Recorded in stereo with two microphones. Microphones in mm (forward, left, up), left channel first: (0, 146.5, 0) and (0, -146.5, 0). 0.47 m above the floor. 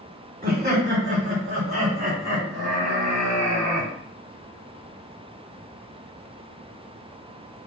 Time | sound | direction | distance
0.4 | laughter | 30° right (ahead or behind) | 1.2 m